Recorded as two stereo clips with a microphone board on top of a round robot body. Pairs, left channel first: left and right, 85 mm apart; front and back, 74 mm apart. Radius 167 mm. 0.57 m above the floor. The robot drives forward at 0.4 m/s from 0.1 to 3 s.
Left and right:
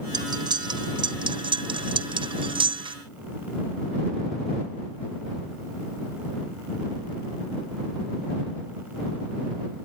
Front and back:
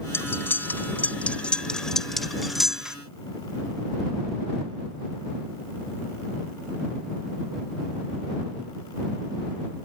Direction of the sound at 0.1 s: 60° right.